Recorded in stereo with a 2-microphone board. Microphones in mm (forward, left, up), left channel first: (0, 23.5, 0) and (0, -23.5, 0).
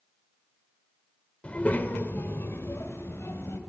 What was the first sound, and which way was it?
A child speaking, 25° left (ahead or behind).